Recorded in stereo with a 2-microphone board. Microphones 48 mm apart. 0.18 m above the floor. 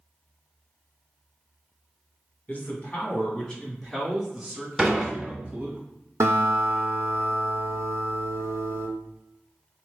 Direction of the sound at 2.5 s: 35° left (ahead or behind).